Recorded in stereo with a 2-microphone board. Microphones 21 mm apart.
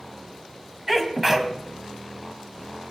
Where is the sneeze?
15° right (ahead or behind), 2.5 m.